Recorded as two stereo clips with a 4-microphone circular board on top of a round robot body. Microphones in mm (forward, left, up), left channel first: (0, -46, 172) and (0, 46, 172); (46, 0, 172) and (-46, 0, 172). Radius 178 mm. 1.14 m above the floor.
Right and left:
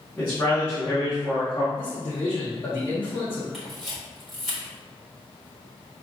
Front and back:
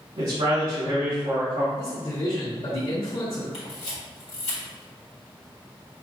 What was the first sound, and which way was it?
A man speaking, 165° right.